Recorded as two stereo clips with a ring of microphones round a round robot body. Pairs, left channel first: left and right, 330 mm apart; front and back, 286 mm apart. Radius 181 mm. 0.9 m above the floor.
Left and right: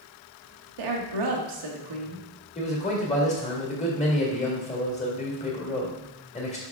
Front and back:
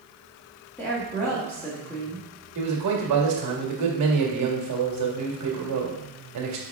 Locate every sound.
0.8 s a woman speaking: 85° right, 1.2 m
2.5 s a man speaking: 160° left, 1.8 m